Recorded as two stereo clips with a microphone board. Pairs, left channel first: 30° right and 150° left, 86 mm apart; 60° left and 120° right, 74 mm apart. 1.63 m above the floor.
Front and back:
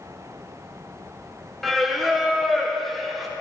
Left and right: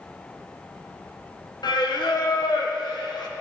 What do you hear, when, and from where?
1.6 s singing: 60° left, 0.9 m